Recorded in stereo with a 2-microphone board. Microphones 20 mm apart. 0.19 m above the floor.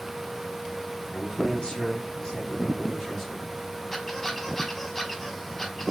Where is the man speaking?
35° left (ahead or behind), 1.9 m; by 3.5 s 5° left (ahead or behind), 2 m.